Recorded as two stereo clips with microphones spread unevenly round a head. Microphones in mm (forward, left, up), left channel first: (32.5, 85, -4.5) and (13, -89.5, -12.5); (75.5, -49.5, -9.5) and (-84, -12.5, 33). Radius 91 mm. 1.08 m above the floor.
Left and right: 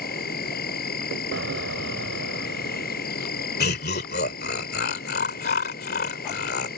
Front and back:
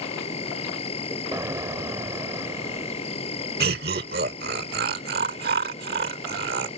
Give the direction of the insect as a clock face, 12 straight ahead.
10 o'clock.